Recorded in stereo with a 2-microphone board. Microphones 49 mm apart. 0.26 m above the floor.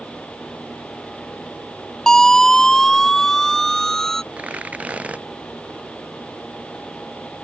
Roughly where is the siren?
Centre.